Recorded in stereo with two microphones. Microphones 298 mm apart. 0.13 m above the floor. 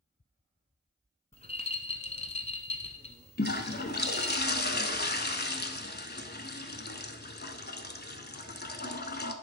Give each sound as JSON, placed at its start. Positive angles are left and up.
{"t": 1.3, "sound": "a rattle", "side_deg": 20, "distance_m": 1.0}
{"t": 3.4, "sound": "a toilet flushing", "side_deg": 35, "distance_m": 0.7}